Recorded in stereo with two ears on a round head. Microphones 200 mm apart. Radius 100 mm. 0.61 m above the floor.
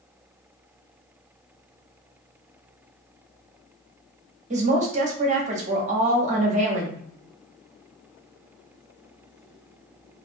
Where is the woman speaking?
35° right (ahead or behind), 0.8 m.